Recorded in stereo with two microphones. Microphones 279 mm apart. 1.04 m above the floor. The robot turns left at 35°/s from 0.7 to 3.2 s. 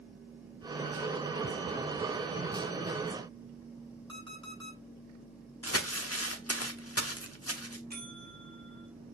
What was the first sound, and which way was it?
An alarm clock, 45° right (ahead or behind).